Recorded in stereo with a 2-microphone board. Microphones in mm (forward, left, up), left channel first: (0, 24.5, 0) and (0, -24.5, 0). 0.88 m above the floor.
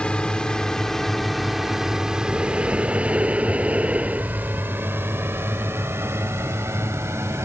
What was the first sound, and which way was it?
A drone, 20° left (ahead or behind).